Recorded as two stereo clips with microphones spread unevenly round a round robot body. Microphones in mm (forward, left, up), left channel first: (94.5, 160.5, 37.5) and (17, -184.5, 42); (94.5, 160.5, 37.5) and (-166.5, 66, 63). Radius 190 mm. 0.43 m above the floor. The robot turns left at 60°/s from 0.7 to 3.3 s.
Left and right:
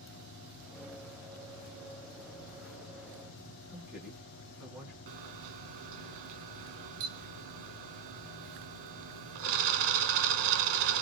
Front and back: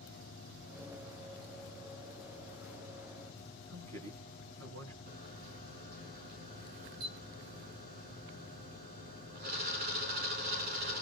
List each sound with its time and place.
3.7 s a man speaking: 170° left, 4.5 m
5.1 s a camera shutter: 95° right, 1.3 m